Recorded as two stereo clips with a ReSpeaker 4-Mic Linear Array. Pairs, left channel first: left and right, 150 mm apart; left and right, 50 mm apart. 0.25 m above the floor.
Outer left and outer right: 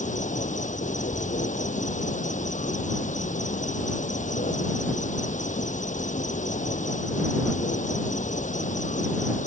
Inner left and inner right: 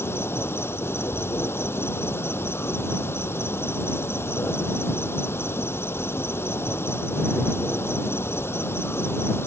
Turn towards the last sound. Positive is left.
turn(degrees=60)  # may be behind; listen again after turning